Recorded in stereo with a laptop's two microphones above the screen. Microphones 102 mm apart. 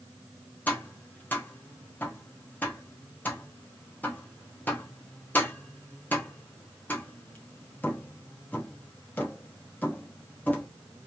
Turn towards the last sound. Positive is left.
turn(degrees=15)  # may be behind; listen again after turning